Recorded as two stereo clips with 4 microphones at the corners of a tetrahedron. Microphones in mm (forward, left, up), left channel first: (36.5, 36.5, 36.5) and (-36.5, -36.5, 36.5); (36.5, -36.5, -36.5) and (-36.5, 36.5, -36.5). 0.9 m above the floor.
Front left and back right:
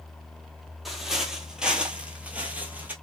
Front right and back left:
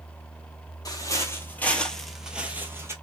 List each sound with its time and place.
0.8 s footsteps: 50° right, 1.0 m; by 2.9 s 170° left, 1.0 m